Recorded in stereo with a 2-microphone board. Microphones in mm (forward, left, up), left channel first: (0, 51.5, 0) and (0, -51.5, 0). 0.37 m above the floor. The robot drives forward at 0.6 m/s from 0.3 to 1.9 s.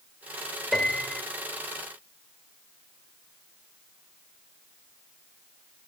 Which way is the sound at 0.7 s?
5° left (ahead or behind).